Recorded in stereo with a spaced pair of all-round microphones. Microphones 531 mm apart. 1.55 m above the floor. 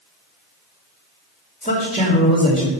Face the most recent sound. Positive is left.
turn(degrees=15)  # may be behind; listen again after turning